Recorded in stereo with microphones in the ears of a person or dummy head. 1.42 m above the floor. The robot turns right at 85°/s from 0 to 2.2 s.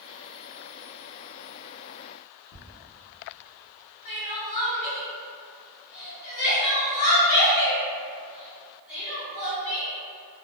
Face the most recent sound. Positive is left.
turn(degrees=20)  # may be behind; listen again after turning